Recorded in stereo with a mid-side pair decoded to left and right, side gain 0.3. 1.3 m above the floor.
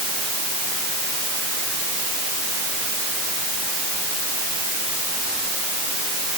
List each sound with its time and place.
Only background noise.